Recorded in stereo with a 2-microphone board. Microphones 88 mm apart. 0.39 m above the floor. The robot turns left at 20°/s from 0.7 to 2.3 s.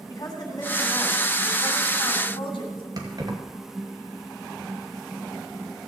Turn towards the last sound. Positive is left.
turn(degrees=-45)  # may be behind; listen again after turning